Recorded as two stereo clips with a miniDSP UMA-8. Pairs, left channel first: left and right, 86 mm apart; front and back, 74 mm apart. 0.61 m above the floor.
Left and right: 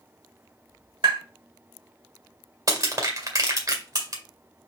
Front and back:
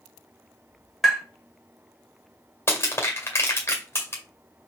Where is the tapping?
90° right, 1.8 m.